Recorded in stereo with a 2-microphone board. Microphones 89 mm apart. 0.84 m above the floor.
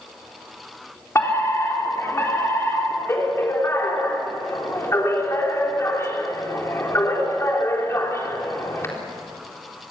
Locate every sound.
1.1 s a fire alarm: 30° left (ahead or behind), 4 m